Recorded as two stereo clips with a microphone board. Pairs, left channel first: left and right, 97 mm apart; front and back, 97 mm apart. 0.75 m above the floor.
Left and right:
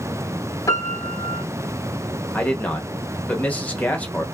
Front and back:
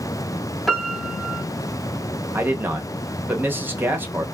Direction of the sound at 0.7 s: 90° left.